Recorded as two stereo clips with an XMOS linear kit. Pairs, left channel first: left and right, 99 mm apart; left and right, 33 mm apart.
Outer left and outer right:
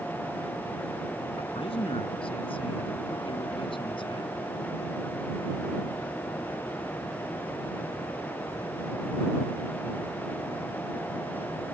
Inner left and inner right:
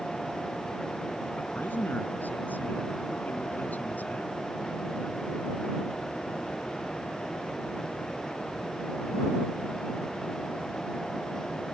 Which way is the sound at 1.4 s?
70° left (ahead or behind).